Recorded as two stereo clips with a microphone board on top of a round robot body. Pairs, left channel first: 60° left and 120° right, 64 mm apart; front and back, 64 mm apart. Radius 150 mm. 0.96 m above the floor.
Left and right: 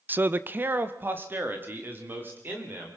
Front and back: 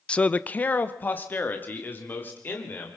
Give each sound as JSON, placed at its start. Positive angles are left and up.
{"t": 0.1, "sound": "a man speaking", "azimuth_deg": -70, "distance_m": 0.6}